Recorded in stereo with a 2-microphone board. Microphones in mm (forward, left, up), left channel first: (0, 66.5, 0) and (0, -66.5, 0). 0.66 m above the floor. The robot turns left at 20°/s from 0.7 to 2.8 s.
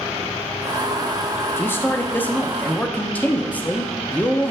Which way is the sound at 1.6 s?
20° left (ahead or behind).